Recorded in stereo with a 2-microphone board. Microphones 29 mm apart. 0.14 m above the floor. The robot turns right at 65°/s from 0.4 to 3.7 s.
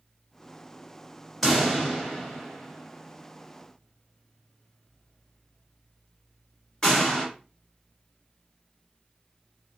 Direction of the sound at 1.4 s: Centre (ahead or behind).